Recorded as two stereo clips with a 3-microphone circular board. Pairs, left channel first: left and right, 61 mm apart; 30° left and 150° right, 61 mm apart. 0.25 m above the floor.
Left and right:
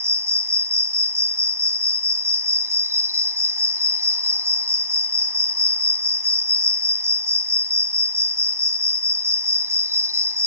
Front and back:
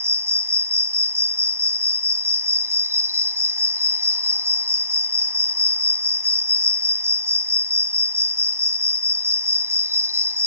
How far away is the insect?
About 1.1 m.